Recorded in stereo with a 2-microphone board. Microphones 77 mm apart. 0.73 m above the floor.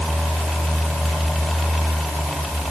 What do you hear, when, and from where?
Only background noise.